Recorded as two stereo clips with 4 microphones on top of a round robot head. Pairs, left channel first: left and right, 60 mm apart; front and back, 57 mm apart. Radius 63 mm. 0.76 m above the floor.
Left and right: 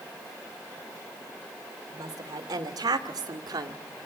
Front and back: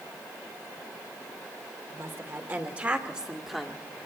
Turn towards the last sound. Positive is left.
turn(degrees=-85)